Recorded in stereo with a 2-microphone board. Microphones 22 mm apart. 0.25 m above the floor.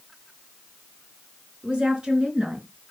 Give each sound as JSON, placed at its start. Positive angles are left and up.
{"t": 1.6, "sound": "a woman speaking", "side_deg": -65, "distance_m": 4.0}